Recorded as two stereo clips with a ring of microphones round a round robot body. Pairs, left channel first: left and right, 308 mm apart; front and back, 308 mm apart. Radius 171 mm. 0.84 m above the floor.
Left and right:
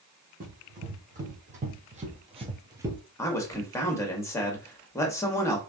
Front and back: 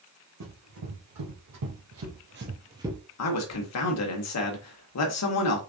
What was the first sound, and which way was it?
Running footsteps, 155° right.